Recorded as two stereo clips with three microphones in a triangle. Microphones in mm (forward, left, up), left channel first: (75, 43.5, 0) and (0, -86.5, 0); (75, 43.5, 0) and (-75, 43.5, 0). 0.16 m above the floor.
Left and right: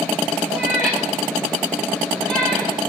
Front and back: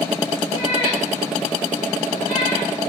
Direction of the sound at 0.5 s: 25° right.